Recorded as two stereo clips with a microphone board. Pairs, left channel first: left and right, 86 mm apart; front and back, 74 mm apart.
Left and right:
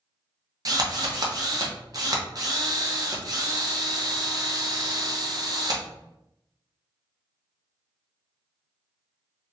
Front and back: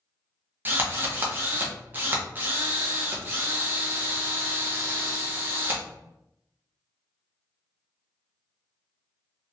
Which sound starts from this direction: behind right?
A drill, at 0.7 s.